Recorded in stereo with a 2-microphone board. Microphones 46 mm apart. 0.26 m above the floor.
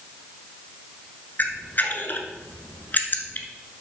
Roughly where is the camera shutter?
Left.